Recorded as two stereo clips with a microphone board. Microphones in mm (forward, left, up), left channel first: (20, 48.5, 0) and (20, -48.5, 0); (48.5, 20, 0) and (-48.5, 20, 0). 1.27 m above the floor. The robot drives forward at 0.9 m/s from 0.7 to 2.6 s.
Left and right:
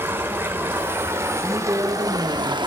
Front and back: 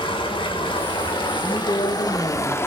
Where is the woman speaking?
30° right, 2.5 m; by 2.6 s 50° right, 1.5 m.